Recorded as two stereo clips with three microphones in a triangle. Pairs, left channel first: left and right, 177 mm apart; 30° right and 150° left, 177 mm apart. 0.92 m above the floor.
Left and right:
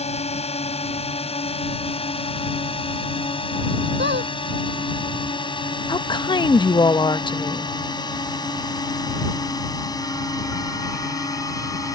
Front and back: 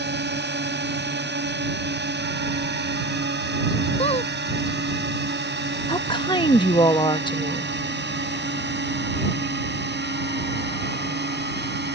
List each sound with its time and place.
0.0 s a drone: 140° left; by 12.0 s 160° left
4.0 s a squeak: 85° right
5.9 s a woman speaking: 30° left